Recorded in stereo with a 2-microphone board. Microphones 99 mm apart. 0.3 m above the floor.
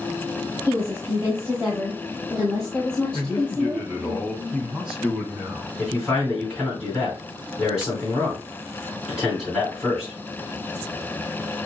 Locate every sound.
0.7 s a woman speaking: 25° right (ahead or behind), 2.5 m; by 4.1 s 35° left (ahead or behind), 1.6 m
3.1 s a man speaking: 5° right (ahead or behind), 3 m
5.8 s a man speaking: 5° right (ahead or behind), 3 m